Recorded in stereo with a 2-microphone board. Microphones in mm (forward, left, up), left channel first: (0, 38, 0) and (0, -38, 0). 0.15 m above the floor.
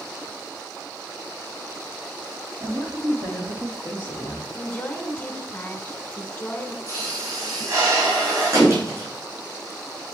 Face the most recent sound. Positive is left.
turn(degrees=-50)  # may be behind; listen again after turning